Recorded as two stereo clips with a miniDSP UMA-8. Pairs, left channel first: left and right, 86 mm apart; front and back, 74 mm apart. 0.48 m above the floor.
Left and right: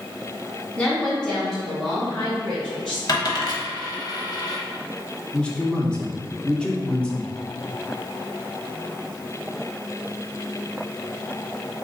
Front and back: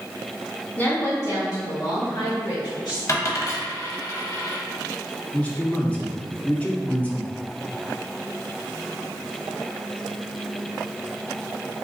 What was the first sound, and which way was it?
A woman speaking, 35° left.